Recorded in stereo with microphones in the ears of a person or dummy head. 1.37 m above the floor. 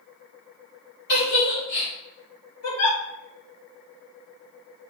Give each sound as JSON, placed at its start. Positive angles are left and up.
{"t": 1.1, "sound": "a giggle", "side_deg": 70, "distance_m": 3.0}
{"t": 2.6, "sound": "a giggle", "side_deg": 85, "distance_m": 2.5}